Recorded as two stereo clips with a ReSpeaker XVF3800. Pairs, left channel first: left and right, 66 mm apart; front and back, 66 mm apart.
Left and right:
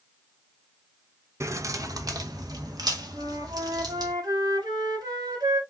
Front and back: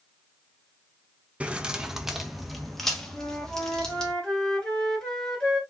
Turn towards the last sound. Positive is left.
turn(degrees=-80)